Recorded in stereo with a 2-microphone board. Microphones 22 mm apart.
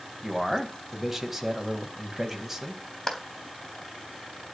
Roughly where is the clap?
Left.